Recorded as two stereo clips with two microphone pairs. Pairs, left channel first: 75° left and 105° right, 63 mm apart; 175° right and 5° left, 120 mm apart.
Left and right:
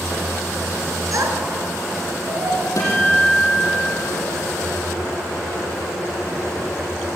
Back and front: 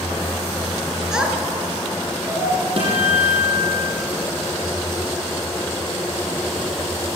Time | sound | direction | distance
1.1 | a child speaking | 80° right | 3 m
2.8 | a guitar | 40° left | 6 m